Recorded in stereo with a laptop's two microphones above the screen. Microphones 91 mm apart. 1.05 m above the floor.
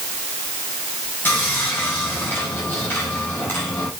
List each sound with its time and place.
1.2 s sawing: 25° left (ahead or behind), 4.5 m